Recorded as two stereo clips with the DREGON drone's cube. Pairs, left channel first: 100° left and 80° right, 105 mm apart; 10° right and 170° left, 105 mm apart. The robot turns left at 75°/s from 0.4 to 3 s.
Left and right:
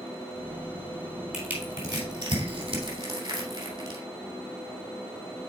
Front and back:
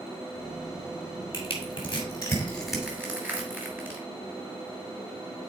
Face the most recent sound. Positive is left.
turn(degrees=-120)